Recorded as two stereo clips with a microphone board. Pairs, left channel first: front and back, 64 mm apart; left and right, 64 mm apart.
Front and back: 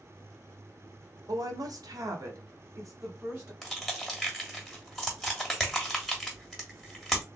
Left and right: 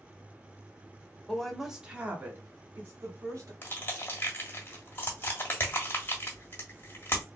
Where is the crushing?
75° left, 1.3 m.